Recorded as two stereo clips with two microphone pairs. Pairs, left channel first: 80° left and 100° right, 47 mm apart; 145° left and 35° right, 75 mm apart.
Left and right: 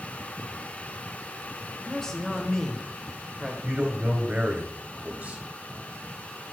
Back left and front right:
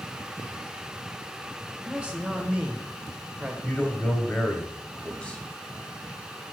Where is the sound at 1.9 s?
20° left, 1.1 m.